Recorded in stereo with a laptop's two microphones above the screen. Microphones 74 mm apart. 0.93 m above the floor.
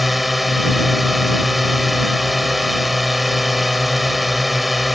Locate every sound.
0.0 s a drone: centre (ahead or behind)